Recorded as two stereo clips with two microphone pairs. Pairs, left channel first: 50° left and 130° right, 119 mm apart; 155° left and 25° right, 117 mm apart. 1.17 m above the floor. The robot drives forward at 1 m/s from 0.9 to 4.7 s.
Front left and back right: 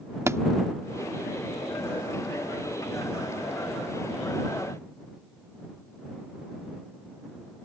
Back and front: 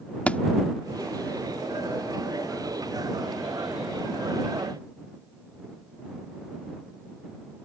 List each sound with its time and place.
0.3 s a thud: 145° right